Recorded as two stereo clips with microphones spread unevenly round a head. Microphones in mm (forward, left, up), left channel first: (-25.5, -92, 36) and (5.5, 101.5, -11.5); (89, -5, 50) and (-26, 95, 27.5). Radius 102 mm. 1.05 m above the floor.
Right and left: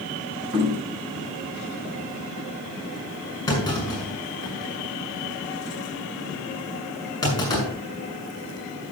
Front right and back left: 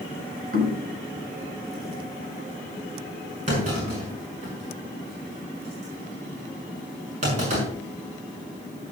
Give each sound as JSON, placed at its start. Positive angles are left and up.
{"t": 0.5, "sound": "knocking", "azimuth_deg": 125, "distance_m": 4.5}
{"t": 3.5, "sound": "a clunk", "azimuth_deg": -175, "distance_m": 6.0}